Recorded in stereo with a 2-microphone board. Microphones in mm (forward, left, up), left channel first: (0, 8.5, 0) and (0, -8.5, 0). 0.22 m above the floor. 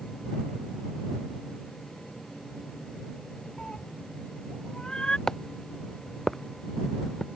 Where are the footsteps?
25° left (ahead or behind); by 7.3 s 15° left (ahead or behind).